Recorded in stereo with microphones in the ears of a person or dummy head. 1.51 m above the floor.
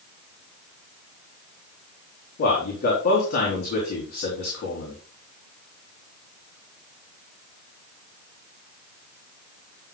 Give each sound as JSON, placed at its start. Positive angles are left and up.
{"t": 2.4, "sound": "a man speaking", "side_deg": 55, "distance_m": 3.0}